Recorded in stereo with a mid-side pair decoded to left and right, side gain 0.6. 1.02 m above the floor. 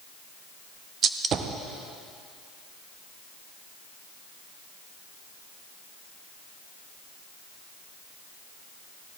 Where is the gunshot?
45° right, 0.7 m.